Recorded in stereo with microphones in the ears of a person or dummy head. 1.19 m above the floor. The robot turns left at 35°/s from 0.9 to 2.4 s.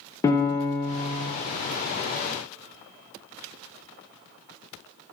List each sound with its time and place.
0.2 s a piano: 15° left (ahead or behind), 0.6 m; by 1.3 s centre (ahead or behind), 0.6 m